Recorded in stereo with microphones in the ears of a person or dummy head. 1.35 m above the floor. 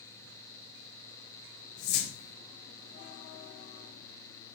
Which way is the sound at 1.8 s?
50° left (ahead or behind).